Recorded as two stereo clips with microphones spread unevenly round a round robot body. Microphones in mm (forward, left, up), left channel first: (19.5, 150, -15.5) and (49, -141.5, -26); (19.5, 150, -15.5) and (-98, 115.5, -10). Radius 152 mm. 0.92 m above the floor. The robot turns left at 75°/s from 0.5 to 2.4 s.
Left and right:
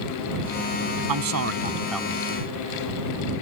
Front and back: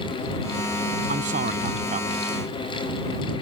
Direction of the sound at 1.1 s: 110° right.